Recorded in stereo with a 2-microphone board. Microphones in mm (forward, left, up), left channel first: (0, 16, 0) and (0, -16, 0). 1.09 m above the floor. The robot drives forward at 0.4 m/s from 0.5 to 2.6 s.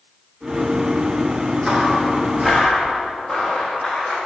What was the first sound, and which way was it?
Footsteps, 20° right (ahead or behind).